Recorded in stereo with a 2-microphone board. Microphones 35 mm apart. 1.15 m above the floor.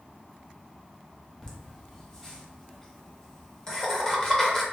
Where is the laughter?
20° left (ahead or behind), 0.9 m.